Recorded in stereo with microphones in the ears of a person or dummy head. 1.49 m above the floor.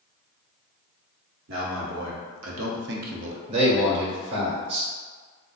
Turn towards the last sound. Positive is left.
turn(degrees=-30)  # may be behind; listen again after turning